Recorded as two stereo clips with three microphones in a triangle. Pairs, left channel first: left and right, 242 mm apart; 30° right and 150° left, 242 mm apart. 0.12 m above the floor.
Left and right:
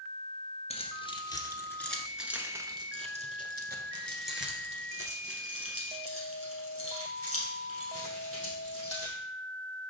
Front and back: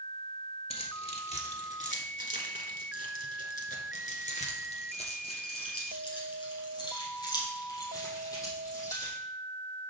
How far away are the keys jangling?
About 1.5 m.